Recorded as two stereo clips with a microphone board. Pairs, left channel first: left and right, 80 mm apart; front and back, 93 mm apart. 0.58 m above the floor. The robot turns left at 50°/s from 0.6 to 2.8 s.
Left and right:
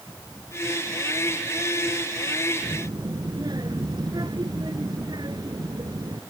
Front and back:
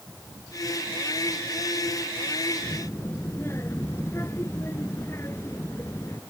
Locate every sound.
2.6 s a child speaking: 55° right; by 6.2 s 60° right